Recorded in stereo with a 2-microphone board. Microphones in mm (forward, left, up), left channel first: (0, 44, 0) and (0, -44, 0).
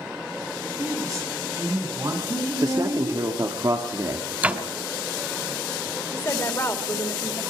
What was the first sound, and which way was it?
A woman speaking, 40° right (ahead or behind).